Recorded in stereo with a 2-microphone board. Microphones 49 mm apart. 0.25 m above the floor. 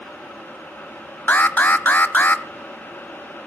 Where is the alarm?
40° left (ahead or behind), 0.9 m.